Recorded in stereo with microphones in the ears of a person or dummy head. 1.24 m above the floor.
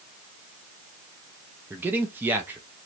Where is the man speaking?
10° right (ahead or behind), 0.5 m.